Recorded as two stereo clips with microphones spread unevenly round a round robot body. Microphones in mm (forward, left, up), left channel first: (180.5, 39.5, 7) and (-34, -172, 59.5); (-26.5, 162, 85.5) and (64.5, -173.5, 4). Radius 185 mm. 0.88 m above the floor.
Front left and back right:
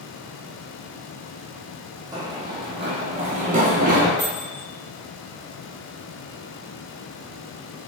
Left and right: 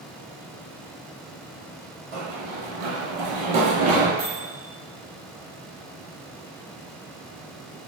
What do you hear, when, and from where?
2.1 s running footsteps: 65° right, 1.6 m; by 4.1 s 115° right, 1.1 m
4.2 s a microwave: 15° right, 1.7 m